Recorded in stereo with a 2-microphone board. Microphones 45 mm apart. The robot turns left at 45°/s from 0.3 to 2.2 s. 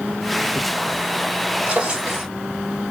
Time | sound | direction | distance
1.7 | a drawer | 40° right (ahead or behind) | 1.5 m